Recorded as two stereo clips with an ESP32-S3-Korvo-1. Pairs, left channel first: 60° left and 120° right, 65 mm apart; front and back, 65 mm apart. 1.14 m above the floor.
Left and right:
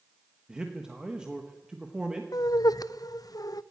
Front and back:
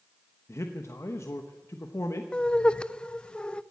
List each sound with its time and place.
0.5 s a man speaking: 40° right, 1.1 m
2.3 s laughter: 75° left, 0.5 m